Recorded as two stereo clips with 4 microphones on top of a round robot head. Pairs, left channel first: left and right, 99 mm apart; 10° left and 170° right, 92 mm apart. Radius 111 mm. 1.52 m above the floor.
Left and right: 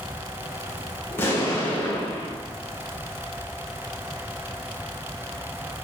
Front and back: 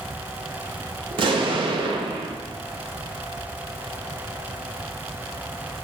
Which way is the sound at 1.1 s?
160° left.